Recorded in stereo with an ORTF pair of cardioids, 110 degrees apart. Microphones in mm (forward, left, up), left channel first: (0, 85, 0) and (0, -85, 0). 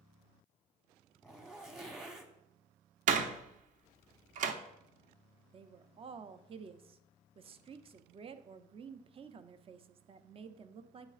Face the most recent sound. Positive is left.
turn(degrees=-35)